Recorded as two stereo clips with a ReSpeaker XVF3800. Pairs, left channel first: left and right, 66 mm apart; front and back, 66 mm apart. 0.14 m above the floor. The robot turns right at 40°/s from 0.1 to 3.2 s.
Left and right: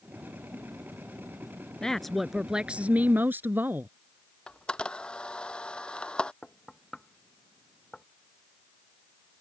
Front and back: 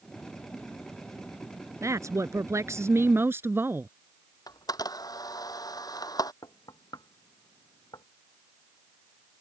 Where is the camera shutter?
15° left.